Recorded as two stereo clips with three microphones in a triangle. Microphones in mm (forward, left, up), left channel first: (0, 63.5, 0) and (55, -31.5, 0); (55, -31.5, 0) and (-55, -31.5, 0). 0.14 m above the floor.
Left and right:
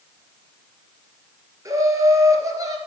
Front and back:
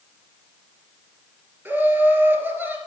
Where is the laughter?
110° right, 2.5 m.